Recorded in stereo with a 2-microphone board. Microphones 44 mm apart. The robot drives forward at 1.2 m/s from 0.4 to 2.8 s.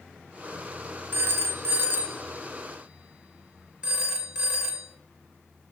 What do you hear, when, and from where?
1.1 s a phone ringing: 50° right (ahead or behind), 1.0 m; by 4.9 s 25° right (ahead or behind), 1.9 m